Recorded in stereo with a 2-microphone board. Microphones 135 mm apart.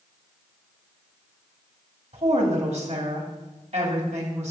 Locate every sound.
2.1 s a woman speaking: 55° right (ahead or behind), 2.5 m